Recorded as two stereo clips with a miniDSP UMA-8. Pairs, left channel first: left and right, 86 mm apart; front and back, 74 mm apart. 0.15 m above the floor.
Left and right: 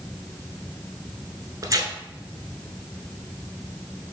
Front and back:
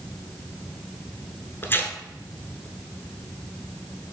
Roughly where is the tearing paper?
Ahead right.